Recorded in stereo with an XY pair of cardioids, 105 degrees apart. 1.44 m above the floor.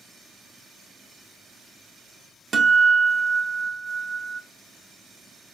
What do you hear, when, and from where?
2.5 s a guitar: 35° right, 0.6 m